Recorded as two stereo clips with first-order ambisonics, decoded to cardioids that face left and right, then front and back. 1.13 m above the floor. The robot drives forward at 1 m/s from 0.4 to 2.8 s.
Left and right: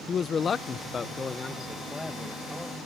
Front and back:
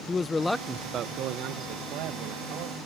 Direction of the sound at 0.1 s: 60° left.